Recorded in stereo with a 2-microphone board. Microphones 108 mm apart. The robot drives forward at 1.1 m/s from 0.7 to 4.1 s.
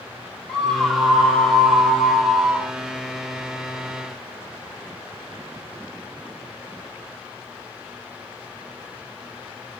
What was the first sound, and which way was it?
A scream, 5° left (ahead or behind).